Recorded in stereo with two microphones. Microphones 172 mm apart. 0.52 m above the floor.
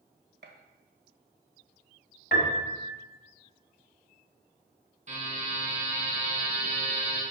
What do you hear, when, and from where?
0.4 s a gunshot: 75° right (ahead or behind), 1.2 m
2.3 s a piano: 75° left (ahead or behind), 1.7 m
5.1 s a buzzer: 45° right (ahead or behind), 4.5 m